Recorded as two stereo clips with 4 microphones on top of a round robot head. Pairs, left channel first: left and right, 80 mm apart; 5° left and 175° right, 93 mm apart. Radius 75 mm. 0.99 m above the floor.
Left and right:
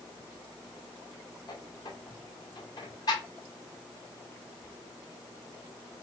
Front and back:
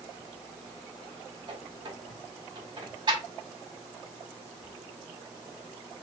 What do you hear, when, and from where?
1.5 s a squeak: 145° left, 1.5 m